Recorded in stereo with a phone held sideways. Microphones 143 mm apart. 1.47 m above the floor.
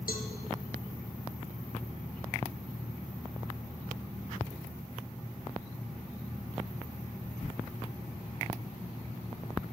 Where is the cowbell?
80° left, 0.9 m.